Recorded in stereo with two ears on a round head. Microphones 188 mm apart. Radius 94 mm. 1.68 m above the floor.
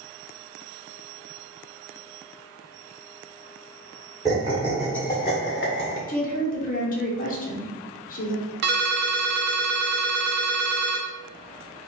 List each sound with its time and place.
4.2 s laughter: 20° right (ahead or behind), 1.1 m; by 6.0 s 60° left (ahead or behind), 0.8 m
6.1 s a woman speaking: 45° left (ahead or behind), 1.0 m
8.6 s a ringtone: 55° right (ahead or behind), 0.8 m